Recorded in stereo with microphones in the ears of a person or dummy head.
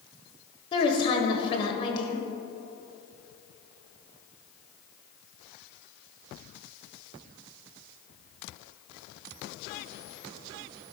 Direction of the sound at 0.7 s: 25° left (ahead or behind).